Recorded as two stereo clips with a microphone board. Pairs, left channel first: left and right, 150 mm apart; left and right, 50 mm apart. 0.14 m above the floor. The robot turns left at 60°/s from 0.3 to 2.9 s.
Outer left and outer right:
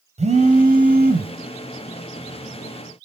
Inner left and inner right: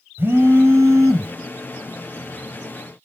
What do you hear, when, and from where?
0.2 s a phone buzzing: 50° right, 2.5 m; by 1.4 s 110° right, 2.5 m